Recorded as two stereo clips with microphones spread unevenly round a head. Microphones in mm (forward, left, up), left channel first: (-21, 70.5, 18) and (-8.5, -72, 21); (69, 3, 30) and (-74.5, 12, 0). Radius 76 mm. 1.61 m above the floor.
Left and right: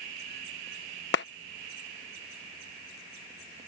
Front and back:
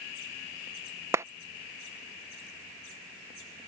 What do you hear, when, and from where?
1.1 s a clap: 100° left